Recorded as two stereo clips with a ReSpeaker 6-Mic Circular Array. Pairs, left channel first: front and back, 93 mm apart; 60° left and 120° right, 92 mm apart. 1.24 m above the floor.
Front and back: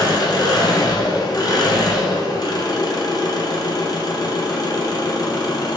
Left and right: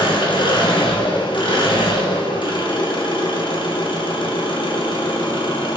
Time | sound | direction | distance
0.0 | an engine running | 40° left | 0.7 m